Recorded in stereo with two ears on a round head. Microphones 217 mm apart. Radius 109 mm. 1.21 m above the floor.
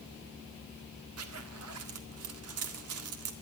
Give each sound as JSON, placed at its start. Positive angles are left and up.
{"t": 1.2, "sound": "a zipper", "side_deg": -70, "distance_m": 1.7}